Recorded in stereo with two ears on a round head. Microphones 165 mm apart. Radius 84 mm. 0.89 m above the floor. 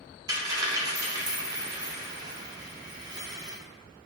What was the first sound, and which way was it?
A dropped coin, 20° right (ahead or behind).